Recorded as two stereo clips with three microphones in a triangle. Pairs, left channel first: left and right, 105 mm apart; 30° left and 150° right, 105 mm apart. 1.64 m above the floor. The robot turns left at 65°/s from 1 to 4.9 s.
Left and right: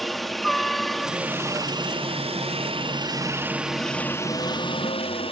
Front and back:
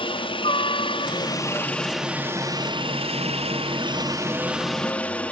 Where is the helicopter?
Straight ahead; by 5.3 s 105° left.